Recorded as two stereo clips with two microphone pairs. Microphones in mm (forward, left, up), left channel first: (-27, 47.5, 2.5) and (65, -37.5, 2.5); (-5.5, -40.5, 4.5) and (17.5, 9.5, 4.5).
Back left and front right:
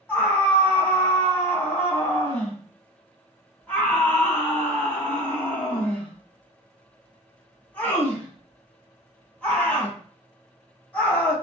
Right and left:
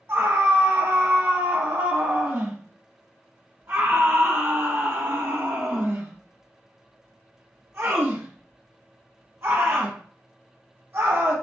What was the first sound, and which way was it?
A scream, 65° left.